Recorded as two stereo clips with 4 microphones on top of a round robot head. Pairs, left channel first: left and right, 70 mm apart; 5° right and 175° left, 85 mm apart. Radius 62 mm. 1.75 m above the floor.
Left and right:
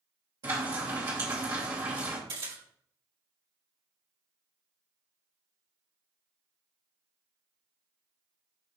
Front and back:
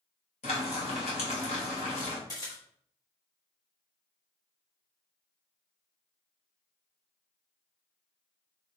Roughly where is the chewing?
No chewing in this recording.